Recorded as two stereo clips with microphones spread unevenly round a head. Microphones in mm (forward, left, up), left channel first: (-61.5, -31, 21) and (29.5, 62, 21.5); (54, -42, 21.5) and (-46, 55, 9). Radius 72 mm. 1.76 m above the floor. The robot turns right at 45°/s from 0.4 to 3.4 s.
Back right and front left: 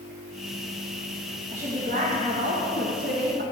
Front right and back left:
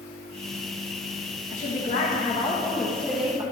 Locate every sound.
1.5 s a woman speaking: 15° right, 1.8 m; by 3.4 s 70° left, 1.8 m